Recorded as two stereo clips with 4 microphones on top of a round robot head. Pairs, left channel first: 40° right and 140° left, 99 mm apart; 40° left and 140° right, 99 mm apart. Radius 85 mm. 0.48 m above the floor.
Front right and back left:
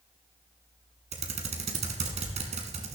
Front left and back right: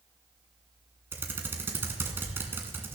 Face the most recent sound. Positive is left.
turn(degrees=150)